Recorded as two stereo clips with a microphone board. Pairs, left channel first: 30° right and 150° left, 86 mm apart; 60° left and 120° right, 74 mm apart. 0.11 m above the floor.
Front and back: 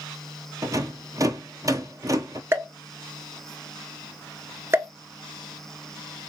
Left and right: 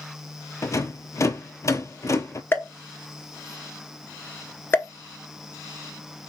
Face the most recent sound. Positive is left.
turn(degrees=105)